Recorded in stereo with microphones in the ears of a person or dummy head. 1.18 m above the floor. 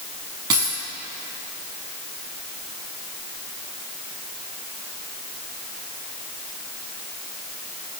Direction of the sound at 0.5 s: 20° right (ahead or behind).